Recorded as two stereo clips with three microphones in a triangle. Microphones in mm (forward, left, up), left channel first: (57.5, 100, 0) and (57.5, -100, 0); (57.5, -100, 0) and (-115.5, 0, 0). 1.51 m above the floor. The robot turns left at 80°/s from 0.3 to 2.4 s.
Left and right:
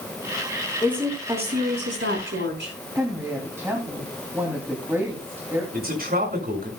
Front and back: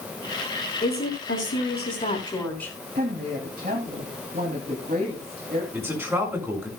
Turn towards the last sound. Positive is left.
turn(degrees=-130)